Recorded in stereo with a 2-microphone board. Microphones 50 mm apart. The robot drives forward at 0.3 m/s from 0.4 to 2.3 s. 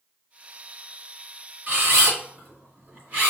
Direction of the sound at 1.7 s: 40° right (ahead or behind).